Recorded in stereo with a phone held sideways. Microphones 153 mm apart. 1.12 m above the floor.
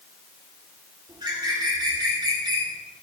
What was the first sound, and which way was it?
A bird, 30° right (ahead or behind).